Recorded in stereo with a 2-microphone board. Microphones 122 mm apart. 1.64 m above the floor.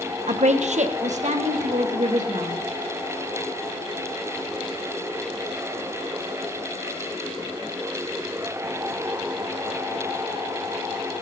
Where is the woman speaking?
65° right (ahead or behind), 0.9 m; by 2.5 s 75° right (ahead or behind), 2.5 m.